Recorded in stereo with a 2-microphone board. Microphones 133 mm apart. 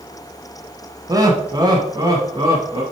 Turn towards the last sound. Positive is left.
turn(degrees=-30)  # may be behind; listen again after turning